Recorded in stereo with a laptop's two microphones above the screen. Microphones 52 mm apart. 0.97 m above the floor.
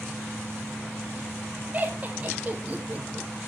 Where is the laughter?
30° right (ahead or behind), 1.3 m.